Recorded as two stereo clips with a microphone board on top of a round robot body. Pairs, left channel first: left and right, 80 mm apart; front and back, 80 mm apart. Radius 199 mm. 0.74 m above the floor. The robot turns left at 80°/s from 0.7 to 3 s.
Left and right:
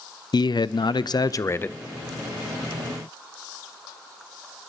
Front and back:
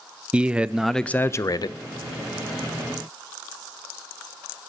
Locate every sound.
0.3 s a man speaking: 105° left, 0.6 m; by 1.8 s 20° left, 0.6 m